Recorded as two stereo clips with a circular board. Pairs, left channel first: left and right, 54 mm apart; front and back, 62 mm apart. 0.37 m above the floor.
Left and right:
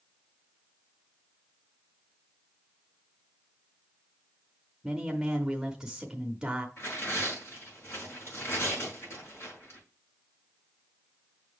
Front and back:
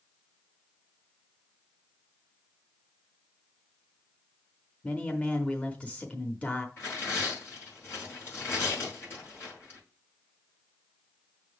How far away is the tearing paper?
About 4.5 m.